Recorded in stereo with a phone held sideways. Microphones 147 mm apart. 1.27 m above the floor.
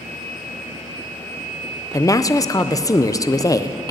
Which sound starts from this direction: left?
A woman speaking, at 1.9 s.